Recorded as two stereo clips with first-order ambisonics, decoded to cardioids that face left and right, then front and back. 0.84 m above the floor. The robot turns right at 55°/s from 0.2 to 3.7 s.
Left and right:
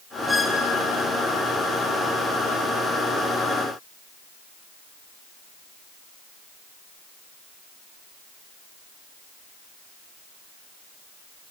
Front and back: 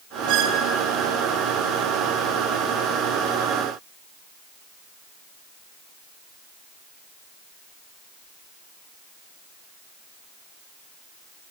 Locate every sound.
0.3 s a squeak: 170° left, 0.5 m; by 0.7 s 170° right, 0.5 m